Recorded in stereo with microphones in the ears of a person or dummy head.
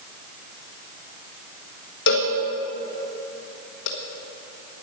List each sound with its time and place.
2.1 s a cowbell: 60° left (ahead or behind), 1.4 m